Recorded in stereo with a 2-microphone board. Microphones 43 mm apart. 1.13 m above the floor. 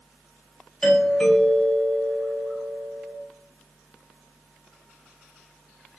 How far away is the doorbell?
About 1.4 m.